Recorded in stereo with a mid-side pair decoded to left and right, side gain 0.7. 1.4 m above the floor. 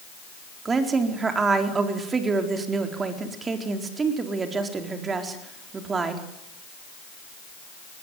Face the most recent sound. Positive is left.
turn(degrees=-25)